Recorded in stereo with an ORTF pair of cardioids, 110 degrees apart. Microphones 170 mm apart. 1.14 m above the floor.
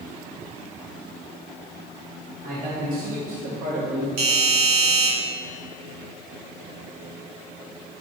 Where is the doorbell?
65° right, 3 m.